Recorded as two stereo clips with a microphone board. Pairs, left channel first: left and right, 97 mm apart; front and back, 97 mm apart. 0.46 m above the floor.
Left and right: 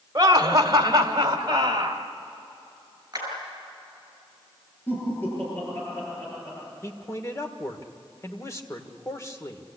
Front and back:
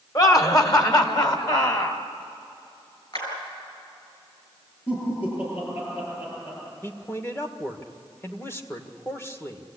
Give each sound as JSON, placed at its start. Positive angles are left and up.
{"t": 0.1, "sound": "laughter", "azimuth_deg": -45, "distance_m": 1.8}
{"t": 3.1, "sound": "a clap", "azimuth_deg": -35, "distance_m": 7.0}
{"t": 4.9, "sound": "laughter", "azimuth_deg": 20, "distance_m": 9.5}
{"t": 6.8, "sound": "a man speaking", "azimuth_deg": 50, "distance_m": 1.7}